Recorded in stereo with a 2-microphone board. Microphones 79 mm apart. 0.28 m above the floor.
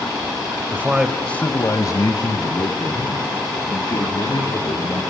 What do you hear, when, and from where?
0.7 s a man speaking: 30° right (ahead or behind), 1.1 m; by 5.0 s 80° left, 5 m